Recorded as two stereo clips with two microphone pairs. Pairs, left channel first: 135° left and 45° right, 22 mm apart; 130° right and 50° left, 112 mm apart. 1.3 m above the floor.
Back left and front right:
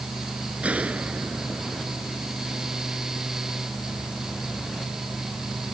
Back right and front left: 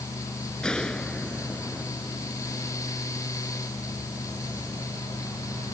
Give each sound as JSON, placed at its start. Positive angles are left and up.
{"t": 0.6, "sound": "a gunshot", "azimuth_deg": -45}